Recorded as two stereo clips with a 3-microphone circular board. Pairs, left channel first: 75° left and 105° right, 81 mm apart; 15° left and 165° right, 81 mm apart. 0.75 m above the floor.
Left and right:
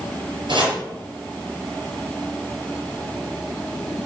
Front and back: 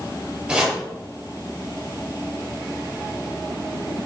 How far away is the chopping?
About 4 m.